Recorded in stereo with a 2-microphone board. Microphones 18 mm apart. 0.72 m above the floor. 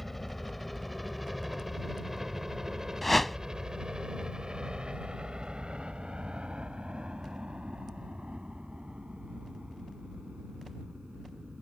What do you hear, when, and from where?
0.0 s a helicopter: 5° left (ahead or behind); by 11.6 s 75° right (ahead or behind)
3.0 s a whoosh: 20° left (ahead or behind)